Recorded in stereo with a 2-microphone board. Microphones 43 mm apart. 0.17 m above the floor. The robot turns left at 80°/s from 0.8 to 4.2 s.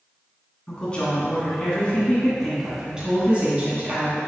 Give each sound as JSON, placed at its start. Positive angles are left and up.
{"t": 0.7, "sound": "a woman speaking", "azimuth_deg": 140, "distance_m": 1.9}